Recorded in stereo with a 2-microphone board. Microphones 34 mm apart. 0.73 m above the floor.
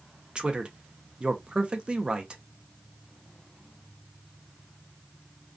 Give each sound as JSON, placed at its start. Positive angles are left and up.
{"t": 0.3, "sound": "a man speaking", "side_deg": -25, "distance_m": 0.5}